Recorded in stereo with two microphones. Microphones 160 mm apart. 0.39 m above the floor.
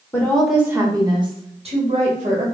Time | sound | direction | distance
0.1 | a woman speaking | 15° left (ahead or behind) | 0.9 m